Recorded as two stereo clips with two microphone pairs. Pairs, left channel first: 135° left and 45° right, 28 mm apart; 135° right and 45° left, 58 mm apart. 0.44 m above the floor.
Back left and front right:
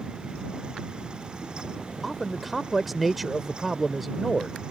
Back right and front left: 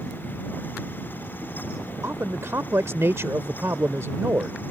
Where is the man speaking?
40° left.